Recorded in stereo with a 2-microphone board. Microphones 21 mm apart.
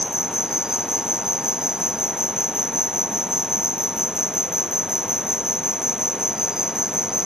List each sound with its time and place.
0.0 s an insect: 30° right (ahead or behind)